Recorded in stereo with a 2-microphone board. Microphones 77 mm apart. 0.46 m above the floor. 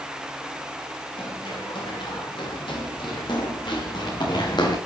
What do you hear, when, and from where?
1.2 s running footsteps: 85° left, 7.5 m; by 4.8 s 65° left (ahead or behind), 6.5 m